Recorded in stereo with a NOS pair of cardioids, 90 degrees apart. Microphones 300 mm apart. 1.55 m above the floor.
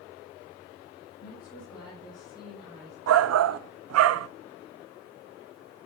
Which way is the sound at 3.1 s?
55° right.